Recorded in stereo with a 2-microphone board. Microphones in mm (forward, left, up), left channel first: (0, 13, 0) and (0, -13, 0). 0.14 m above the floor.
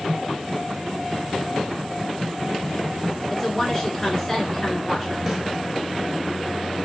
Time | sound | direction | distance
3.3 | a woman speaking | 20° left (ahead or behind) | 1.4 m
5.3 | a snare drum | 10° right (ahead or behind) | 1.4 m